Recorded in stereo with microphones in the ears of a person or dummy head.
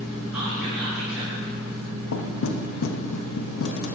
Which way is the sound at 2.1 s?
75° left (ahead or behind).